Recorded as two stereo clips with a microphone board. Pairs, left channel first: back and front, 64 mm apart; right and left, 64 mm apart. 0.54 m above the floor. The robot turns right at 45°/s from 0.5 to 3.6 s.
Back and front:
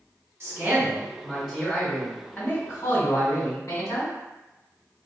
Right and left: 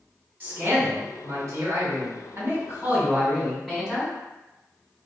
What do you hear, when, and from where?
0.4 s a man speaking: 30° left, 1.8 m; by 4.2 s 170° left, 1.8 m